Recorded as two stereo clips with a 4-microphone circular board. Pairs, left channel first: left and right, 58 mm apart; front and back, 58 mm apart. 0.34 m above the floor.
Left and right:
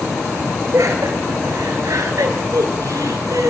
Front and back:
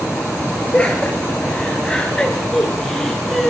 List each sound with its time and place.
0.7 s laughter: 70° right, 5.5 m; by 3.5 s 90° right, 4 m